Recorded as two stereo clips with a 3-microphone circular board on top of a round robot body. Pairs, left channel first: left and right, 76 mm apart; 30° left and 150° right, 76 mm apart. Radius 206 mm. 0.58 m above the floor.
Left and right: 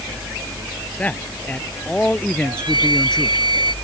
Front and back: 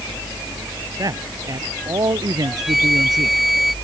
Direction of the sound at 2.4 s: 60° right.